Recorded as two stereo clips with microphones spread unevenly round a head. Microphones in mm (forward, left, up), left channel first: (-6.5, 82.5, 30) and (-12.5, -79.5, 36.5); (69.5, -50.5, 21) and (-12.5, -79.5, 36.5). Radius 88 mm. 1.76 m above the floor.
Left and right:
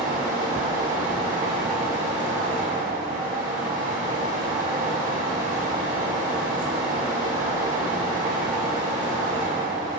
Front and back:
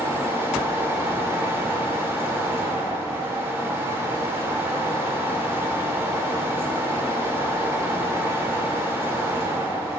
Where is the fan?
120° right, 1.6 m.